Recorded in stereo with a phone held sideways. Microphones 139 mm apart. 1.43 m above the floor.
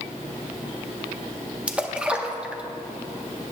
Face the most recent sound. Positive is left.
turn(degrees=-10)  # may be behind; listen again after turning